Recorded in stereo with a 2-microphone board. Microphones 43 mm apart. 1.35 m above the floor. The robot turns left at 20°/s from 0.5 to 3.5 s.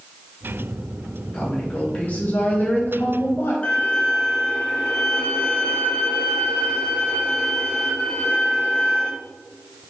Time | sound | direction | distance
1.3 | a woman speaking | 155° left | 1.7 m
3.6 | a violin | 35° left (ahead or behind) | 0.9 m